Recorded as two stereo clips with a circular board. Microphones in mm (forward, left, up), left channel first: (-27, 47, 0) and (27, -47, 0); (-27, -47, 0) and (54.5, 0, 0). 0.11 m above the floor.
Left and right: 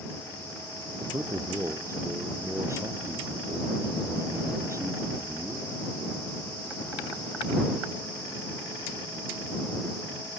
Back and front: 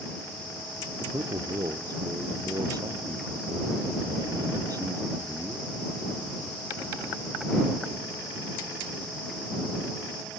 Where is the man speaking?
5° right.